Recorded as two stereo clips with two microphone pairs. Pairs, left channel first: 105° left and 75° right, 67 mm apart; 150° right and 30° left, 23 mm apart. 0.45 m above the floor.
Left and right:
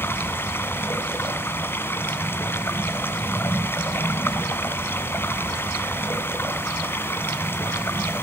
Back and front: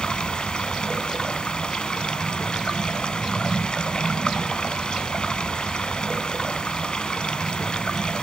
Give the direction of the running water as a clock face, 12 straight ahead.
7 o'clock.